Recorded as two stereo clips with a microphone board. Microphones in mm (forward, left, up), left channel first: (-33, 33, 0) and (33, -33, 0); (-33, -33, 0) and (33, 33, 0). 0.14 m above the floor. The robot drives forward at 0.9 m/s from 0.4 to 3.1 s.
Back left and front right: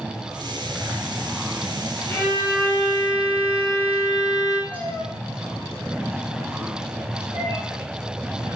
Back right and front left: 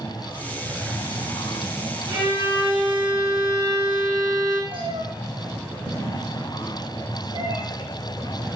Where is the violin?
70° left, 2.5 m; by 4.6 s 95° left, 2.5 m.